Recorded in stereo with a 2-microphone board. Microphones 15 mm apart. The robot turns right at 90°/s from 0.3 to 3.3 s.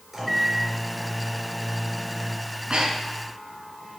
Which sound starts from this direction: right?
Breathing, at 2.5 s.